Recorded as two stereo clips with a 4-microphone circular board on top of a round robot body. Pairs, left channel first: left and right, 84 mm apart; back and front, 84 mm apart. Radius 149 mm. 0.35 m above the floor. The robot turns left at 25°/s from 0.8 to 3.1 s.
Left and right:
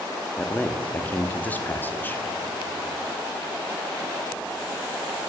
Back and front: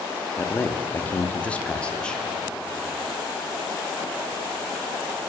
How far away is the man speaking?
About 0.8 m.